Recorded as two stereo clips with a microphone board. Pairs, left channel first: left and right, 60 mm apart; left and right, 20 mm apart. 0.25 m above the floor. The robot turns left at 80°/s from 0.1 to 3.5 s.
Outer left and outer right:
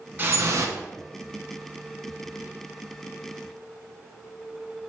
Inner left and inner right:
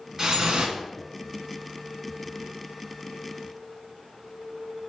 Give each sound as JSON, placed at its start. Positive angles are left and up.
{"t": 0.2, "sound": "dripping", "azimuth_deg": -35, "distance_m": 0.7}